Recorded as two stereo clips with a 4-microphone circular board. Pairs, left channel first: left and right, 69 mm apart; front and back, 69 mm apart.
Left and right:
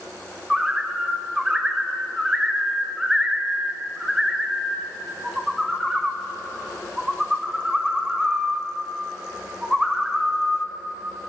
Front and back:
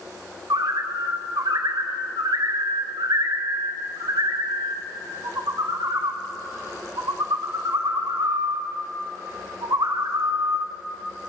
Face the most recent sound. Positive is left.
turn(degrees=-170)